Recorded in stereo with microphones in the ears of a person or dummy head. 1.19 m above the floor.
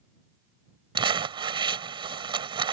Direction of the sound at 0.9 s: 25° right (ahead or behind).